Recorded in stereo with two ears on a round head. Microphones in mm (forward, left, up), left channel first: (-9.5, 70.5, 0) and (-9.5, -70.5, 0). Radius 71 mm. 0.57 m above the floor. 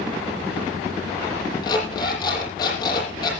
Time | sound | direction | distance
1.6 | an alarm clock | 25° left (ahead or behind) | 8.5 m